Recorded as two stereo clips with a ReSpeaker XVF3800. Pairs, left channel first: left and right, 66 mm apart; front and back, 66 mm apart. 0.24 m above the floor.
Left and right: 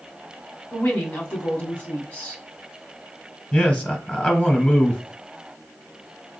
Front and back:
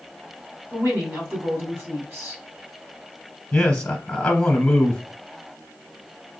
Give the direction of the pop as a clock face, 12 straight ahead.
No pop in this recording.